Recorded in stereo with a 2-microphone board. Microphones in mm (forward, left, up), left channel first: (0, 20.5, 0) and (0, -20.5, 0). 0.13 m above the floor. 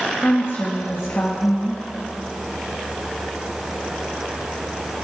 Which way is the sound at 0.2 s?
55° left (ahead or behind).